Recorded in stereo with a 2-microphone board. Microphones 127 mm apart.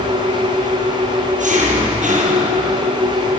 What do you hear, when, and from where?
0.0 s an engine running: 85° right, 6.5 m